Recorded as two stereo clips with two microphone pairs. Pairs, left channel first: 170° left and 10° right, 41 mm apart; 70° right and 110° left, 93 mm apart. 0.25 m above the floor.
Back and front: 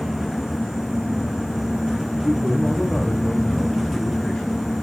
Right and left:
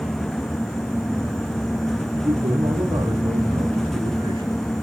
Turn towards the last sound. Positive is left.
turn(degrees=95)